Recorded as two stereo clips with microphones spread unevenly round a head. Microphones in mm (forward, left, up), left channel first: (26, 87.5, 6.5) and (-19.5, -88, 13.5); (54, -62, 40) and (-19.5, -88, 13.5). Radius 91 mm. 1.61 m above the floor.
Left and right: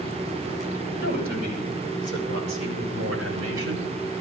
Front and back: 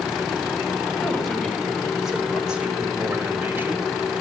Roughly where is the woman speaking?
Ahead right.